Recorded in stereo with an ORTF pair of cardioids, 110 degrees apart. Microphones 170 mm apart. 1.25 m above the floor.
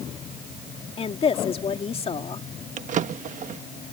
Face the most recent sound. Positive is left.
turn(degrees=-50)